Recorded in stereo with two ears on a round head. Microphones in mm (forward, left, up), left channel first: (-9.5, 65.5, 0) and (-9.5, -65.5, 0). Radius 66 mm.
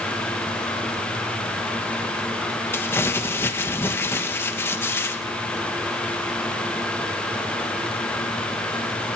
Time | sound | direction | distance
2.7 | crumpling | 15° left (ahead or behind) | 1.3 m